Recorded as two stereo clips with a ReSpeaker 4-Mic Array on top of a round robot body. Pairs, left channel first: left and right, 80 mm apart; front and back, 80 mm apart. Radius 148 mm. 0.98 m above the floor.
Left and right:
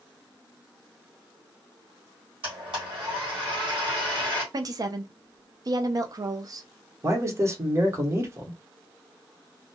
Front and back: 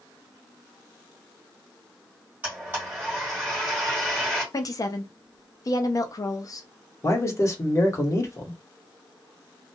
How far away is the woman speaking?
About 0.5 m.